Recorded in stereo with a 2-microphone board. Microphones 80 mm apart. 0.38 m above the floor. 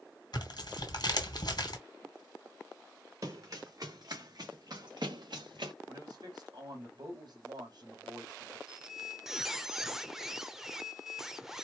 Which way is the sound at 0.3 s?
60° left (ahead or behind).